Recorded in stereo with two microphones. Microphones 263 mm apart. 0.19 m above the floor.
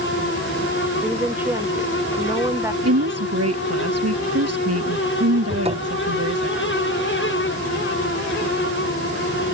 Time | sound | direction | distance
1.0 | a woman speaking | 5° right (ahead or behind) | ?
2.8 | a woman speaking | 70° right (ahead or behind) | ?
5.5 | a cupboard door | 25° right (ahead or behind) | ?